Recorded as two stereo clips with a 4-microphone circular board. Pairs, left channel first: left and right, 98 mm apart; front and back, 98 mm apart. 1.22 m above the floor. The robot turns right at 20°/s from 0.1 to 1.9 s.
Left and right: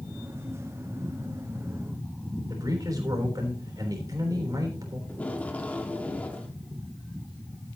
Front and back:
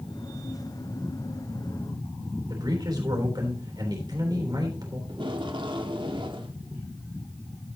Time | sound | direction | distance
2.5 | a man speaking | 140° right | 3.5 m
5.1 | tape being pulled | 165° left | 1.3 m